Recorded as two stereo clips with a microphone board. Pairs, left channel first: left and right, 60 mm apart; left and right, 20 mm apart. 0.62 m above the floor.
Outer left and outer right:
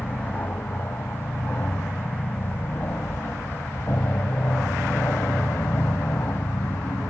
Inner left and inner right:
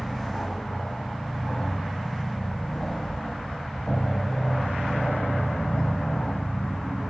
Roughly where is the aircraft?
Left.